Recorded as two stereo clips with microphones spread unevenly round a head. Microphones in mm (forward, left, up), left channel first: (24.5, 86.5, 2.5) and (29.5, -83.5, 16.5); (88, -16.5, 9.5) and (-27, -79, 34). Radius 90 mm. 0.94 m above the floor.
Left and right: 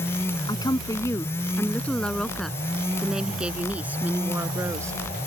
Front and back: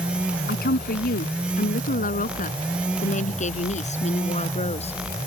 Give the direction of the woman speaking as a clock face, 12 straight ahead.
11 o'clock.